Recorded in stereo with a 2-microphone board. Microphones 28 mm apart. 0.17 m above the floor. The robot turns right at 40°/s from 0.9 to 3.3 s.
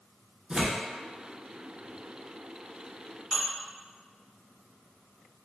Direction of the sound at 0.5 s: 25° right (ahead or behind).